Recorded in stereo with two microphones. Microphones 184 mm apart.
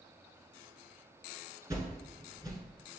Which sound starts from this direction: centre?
A whoosh, at 1.7 s.